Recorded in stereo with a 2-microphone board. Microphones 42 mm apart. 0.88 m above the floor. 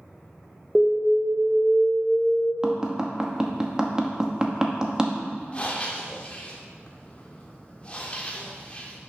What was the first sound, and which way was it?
An alarm, centre (ahead or behind).